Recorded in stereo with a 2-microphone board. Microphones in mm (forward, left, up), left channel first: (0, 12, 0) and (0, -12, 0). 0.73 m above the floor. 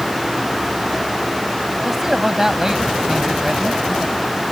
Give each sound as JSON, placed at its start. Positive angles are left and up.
{"t": 1.8, "sound": "a man speaking", "side_deg": -20}